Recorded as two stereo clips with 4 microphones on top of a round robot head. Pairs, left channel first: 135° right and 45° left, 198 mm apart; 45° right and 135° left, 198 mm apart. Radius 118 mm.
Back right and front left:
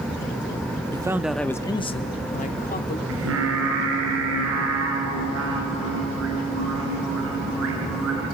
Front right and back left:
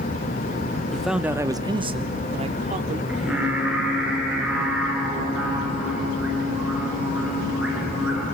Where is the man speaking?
35° left, 0.7 m; by 3.0 s 170° right, 1.4 m.